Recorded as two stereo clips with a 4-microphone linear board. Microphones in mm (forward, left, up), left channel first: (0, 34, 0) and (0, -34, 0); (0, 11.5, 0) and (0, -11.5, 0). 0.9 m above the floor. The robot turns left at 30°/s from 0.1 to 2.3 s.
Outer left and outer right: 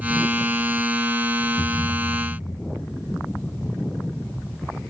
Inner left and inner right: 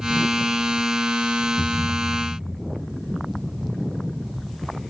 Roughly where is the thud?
Centre.